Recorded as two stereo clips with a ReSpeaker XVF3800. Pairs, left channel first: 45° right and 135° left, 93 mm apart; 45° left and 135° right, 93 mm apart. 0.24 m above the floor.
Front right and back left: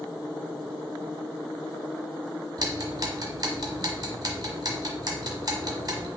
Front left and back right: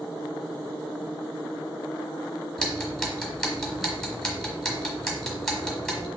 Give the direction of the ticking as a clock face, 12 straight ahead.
8 o'clock.